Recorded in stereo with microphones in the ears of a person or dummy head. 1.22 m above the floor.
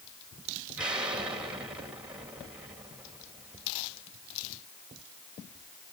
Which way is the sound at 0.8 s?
10° right (ahead or behind).